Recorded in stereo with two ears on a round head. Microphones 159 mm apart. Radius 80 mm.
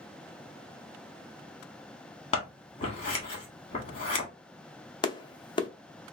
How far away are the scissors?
About 1.4 m.